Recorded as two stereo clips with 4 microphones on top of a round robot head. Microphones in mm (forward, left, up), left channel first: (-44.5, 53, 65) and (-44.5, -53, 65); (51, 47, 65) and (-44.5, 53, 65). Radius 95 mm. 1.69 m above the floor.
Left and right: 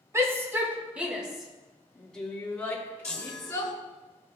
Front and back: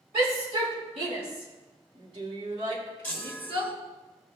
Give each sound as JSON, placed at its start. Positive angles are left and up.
{"t": 0.1, "sound": "a shout", "azimuth_deg": -155, "distance_m": 3.0}
{"t": 3.0, "sound": "a chime", "azimuth_deg": 45, "distance_m": 1.5}